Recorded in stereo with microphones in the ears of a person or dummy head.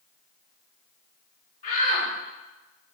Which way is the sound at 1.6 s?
45° left (ahead or behind).